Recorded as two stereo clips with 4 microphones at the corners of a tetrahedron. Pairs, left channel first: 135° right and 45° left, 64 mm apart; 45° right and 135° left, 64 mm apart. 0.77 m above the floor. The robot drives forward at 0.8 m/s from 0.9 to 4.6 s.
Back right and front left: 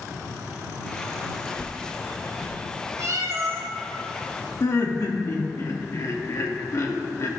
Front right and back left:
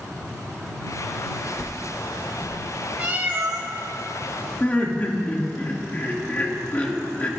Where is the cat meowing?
70° left, 1.3 m; by 3.7 s 100° left, 1.2 m.